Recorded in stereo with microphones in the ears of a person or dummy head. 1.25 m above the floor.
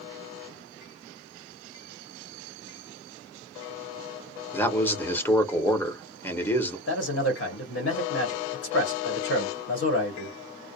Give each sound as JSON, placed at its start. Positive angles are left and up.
{"t": 4.5, "sound": "a man speaking", "side_deg": 10, "distance_m": 0.8}
{"t": 6.9, "sound": "a man speaking", "side_deg": 80, "distance_m": 1.1}